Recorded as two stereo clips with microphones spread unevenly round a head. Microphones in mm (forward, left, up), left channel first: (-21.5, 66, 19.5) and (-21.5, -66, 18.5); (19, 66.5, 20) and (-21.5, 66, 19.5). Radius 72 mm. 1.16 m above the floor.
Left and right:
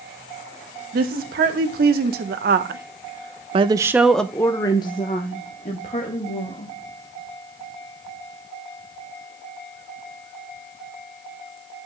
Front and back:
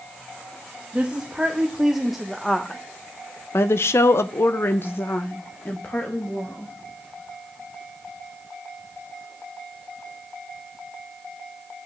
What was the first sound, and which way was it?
A woman speaking, 100° right.